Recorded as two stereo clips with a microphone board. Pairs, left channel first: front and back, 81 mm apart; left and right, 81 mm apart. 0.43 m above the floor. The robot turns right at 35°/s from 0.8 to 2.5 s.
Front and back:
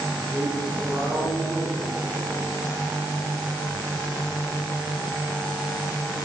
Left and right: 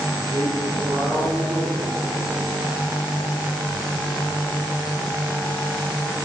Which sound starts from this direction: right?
A man speaking, at 0.2 s.